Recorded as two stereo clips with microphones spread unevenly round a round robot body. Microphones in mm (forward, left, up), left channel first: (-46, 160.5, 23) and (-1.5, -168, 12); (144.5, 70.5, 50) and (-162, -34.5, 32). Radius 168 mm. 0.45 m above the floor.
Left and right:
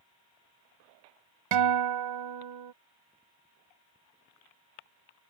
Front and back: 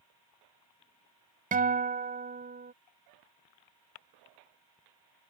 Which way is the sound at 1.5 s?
95° right.